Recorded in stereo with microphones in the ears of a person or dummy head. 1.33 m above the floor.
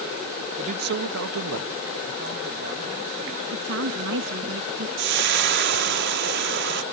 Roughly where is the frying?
Right.